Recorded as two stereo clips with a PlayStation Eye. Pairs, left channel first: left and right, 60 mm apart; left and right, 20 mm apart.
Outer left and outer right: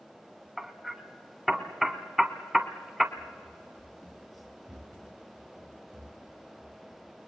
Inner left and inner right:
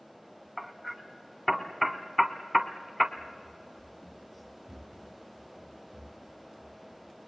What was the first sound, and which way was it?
Hammering, 5° right (ahead or behind).